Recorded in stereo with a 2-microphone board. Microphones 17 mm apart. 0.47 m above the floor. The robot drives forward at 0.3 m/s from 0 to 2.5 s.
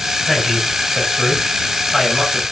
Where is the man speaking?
5° right (ahead or behind), 4.5 m.